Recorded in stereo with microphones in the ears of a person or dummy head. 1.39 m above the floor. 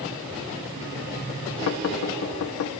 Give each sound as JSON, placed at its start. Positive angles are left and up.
{"t": 1.7, "sound": "knocking", "side_deg": 75, "distance_m": 0.8}